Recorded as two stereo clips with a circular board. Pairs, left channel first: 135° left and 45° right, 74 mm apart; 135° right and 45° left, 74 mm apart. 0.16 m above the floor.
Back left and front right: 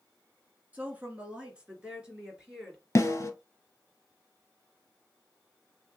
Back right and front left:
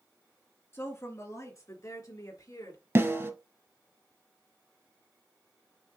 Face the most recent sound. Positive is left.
turn(degrees=90)